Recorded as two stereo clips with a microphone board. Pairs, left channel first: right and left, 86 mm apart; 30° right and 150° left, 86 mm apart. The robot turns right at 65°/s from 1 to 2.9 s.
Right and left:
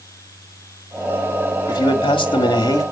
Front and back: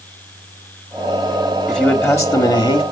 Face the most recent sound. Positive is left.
turn(degrees=-40)